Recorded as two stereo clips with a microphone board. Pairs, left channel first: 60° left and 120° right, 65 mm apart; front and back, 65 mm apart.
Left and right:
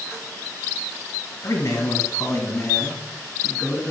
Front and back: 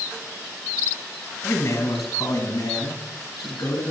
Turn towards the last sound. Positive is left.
turn(degrees=0)